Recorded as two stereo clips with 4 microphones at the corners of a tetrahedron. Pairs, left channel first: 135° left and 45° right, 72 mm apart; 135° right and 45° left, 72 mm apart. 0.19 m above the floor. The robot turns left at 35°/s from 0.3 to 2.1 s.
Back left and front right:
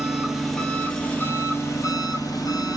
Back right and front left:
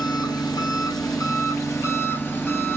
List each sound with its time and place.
0.0 s an engine running: 135° right, 0.8 m; by 2.8 s 165° left, 0.8 m